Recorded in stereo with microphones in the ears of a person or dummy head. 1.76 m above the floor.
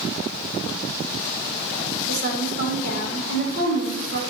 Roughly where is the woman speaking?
Right.